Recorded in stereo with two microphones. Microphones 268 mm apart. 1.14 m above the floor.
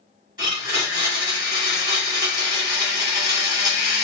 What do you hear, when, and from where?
0.4 s a blender: 15° right (ahead or behind), 2 m